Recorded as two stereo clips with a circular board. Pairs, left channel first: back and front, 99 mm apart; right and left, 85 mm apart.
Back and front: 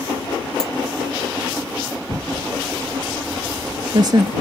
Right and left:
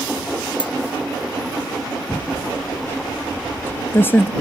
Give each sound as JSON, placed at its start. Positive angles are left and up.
{"t": 0.6, "sound": "a dropped coin", "azimuth_deg": -95}
{"t": 2.1, "sound": "typing on a keyboard", "azimuth_deg": -30}